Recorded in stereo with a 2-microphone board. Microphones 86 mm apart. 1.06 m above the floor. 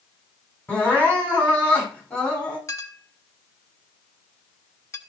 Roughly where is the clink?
Left.